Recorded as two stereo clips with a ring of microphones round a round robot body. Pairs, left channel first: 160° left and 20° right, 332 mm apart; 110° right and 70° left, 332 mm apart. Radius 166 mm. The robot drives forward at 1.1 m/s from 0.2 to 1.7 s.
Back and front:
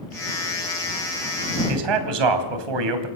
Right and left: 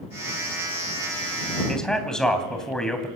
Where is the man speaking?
25° right, 3 m.